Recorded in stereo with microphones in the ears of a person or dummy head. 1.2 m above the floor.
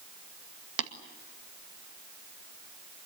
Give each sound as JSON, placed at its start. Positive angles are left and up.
{"t": 0.8, "sound": "tapping", "side_deg": -75, "distance_m": 1.9}